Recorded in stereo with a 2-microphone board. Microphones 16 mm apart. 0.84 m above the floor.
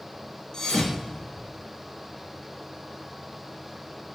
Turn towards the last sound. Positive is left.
turn(degrees=45)  # may be behind; listen again after turning